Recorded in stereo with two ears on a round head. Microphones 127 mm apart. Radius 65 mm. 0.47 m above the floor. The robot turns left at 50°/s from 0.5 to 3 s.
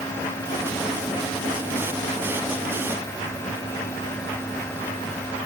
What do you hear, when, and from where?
Only background noise.